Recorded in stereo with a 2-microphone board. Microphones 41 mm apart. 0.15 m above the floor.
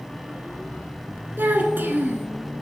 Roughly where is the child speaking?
Right.